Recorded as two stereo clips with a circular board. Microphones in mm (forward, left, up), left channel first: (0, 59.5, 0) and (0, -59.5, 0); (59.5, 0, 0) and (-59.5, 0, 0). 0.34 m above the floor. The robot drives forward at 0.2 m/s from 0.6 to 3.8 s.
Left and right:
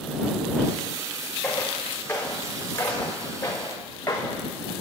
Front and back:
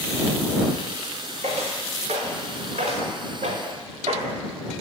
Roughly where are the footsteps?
Behind.